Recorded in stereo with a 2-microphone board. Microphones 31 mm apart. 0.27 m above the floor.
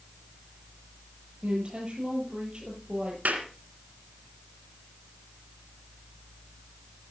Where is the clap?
65° right (ahead or behind), 3 m.